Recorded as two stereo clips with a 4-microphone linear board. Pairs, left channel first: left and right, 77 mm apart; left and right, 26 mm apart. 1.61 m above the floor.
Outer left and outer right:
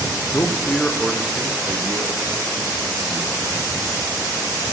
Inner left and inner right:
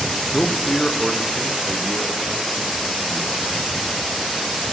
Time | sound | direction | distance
0.3 | a man speaking | 45° left (ahead or behind) | 0.8 m